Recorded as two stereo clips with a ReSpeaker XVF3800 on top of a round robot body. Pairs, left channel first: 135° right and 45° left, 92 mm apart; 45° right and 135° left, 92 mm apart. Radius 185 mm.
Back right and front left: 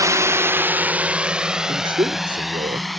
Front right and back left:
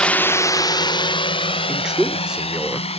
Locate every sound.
0.0 s a drone: 25° left; by 3.0 s 45° right
1.7 s a man speaking: 55° left